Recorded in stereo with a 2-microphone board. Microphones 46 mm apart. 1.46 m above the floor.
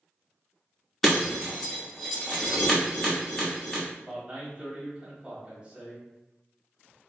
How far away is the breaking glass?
About 1.1 m.